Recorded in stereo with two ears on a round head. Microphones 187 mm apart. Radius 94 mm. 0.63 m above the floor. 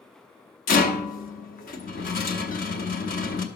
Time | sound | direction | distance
0.7 | a rattle | 40° left (ahead or behind) | 0.8 m